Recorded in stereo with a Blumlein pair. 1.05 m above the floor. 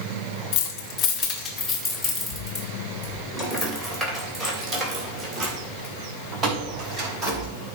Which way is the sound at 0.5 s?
40° left.